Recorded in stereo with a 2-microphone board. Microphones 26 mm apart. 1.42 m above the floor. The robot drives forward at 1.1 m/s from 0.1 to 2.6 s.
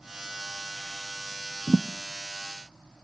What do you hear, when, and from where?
1.7 s a thud: 35° left (ahead or behind), 0.8 m